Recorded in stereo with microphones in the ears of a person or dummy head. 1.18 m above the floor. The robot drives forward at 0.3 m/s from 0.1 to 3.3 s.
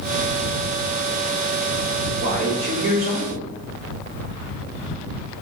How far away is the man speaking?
About 3 m.